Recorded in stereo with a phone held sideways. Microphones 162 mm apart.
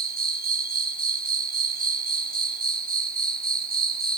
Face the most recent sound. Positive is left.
turn(degrees=-65)  # may be behind; listen again after turning